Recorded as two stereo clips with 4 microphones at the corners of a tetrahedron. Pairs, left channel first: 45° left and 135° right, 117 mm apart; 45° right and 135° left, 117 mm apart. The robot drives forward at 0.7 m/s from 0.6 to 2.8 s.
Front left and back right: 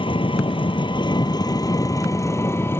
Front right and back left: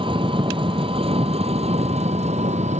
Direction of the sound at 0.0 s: 90° left.